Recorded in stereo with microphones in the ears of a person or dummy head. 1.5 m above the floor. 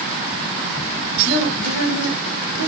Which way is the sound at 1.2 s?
70° right (ahead or behind).